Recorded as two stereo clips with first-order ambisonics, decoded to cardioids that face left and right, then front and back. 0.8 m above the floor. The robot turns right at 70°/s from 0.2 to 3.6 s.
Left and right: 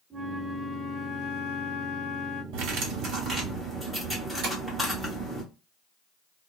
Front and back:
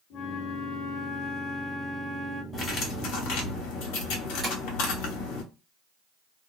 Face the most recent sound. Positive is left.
turn(degrees=-110)